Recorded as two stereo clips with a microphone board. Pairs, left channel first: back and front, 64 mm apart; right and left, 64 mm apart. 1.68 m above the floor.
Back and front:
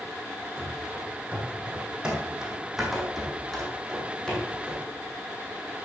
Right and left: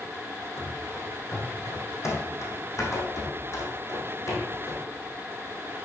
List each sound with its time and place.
0.6 s running footsteps: 55° right, 3.5 m; by 4.8 s 110° right, 3.5 m